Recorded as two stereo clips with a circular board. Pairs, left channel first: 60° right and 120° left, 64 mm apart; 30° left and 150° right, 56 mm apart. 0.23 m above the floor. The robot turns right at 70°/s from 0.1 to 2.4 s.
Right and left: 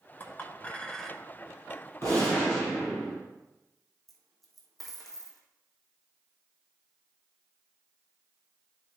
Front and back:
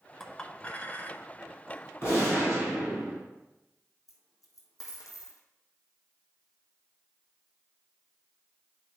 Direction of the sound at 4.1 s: 25° left.